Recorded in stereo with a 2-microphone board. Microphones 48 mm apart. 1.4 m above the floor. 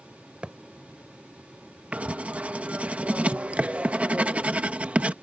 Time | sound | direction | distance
0.4 | a thud | 25° right (ahead or behind) | ?
1.9 | writing | 30° right (ahead or behind) | ?